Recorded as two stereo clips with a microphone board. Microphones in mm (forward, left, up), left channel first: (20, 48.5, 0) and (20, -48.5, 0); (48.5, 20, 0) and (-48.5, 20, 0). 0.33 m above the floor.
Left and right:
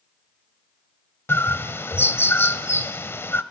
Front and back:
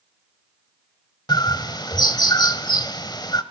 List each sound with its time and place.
1.3 s a bird: 30° left, 1.0 m